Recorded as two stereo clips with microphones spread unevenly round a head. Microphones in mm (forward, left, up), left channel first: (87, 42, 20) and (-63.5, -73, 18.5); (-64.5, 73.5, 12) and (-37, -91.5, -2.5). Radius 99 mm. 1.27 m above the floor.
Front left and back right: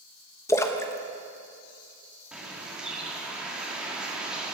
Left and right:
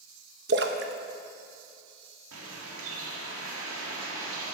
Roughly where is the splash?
Ahead right.